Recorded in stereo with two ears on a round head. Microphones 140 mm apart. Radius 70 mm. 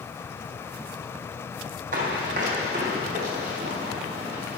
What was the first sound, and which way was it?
Running footsteps, 55° right (ahead or behind).